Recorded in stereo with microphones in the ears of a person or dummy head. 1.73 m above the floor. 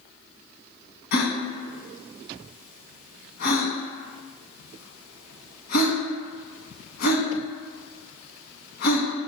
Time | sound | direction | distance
1.1 | a gasp | 60° left (ahead or behind) | 0.9 m